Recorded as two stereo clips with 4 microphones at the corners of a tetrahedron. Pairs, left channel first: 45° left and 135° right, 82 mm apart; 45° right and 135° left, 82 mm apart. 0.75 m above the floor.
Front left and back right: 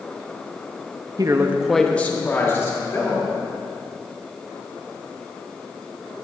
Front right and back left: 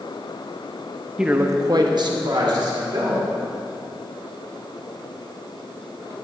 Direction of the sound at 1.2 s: 145° right.